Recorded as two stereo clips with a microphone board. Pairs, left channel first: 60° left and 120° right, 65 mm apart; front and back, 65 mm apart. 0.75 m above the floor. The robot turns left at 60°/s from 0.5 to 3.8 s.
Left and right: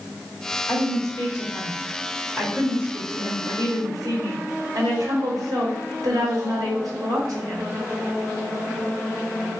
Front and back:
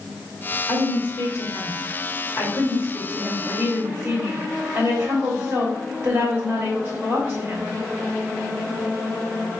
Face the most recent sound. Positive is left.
turn(degrees=-130)